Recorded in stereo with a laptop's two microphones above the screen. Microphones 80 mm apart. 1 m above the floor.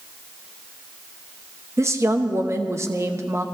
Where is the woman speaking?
35° right (ahead or behind), 0.9 m.